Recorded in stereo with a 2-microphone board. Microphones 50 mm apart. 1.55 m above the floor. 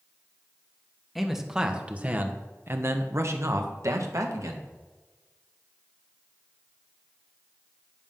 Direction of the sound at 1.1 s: 5° right (ahead or behind).